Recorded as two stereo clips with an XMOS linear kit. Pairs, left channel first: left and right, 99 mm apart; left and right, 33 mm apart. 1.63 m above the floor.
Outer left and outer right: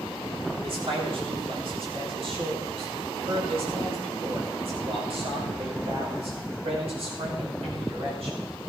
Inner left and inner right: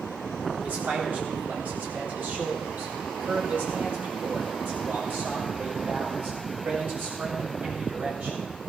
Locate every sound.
0.6 s a man speaking: 65° right (ahead or behind), 4 m; by 8.4 s 75° right (ahead or behind), 7.5 m